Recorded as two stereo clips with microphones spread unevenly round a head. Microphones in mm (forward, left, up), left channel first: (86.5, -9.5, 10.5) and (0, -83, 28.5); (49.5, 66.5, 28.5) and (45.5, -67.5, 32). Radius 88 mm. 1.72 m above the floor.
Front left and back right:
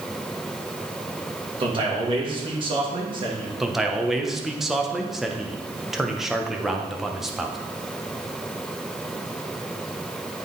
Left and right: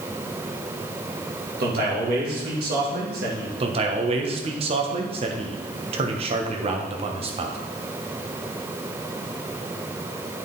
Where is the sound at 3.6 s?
60° right, 1.0 m.